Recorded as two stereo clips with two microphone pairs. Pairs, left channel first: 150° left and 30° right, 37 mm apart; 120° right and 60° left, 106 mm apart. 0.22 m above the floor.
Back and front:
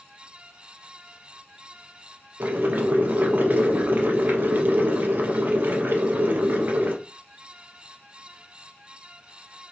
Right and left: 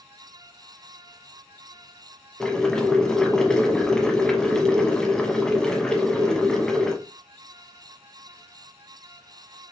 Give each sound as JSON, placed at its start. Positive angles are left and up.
{"t": 2.4, "sound": "boiling", "azimuth_deg": -35, "distance_m": 0.9}